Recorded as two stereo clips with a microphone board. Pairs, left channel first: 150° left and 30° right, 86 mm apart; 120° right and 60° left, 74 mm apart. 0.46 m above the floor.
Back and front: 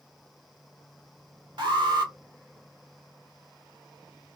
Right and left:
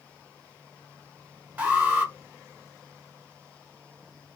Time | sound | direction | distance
1.6 | an alarm | 5° right | 1.1 m